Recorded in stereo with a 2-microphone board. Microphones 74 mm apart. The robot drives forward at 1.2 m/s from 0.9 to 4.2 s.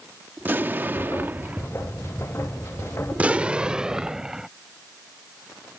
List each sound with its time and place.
0.4 s an explosion: 25° right (ahead or behind); by 1.7 s 20° right (ahead or behind)
3.1 s an explosion: 25° right (ahead or behind); by 4.5 s 10° right (ahead or behind)